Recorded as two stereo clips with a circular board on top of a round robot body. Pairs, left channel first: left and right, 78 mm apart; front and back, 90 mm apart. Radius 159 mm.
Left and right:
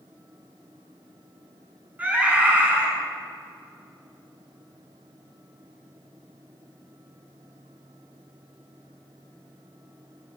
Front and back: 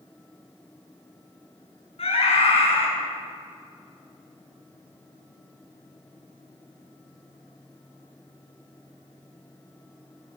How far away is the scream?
About 9 m.